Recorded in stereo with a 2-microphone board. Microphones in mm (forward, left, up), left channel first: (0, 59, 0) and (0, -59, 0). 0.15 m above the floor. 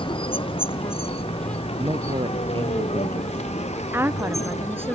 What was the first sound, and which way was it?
A vehicle, 50° left (ahead or behind).